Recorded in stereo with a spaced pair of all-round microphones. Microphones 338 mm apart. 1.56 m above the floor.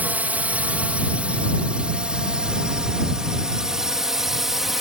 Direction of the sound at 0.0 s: 5° right (ahead or behind).